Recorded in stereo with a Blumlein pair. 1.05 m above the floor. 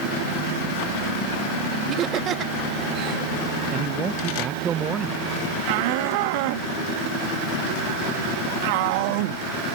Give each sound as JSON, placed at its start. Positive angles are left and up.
{"t": 1.9, "sound": "laughter", "azimuth_deg": -30}
{"t": 3.7, "sound": "a man speaking", "azimuth_deg": -25}
{"t": 5.7, "sound": "a shout", "azimuth_deg": -45}